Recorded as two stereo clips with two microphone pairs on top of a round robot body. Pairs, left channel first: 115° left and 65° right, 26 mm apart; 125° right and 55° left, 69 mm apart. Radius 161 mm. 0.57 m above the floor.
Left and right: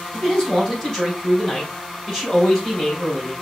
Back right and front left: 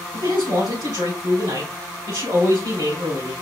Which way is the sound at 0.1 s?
55° left.